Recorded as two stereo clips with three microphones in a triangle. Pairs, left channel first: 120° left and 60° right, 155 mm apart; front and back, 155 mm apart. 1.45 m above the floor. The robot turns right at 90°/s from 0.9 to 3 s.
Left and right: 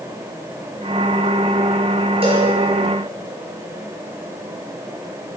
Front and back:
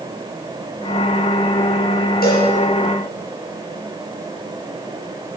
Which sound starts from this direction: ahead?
A cowbell, at 2.2 s.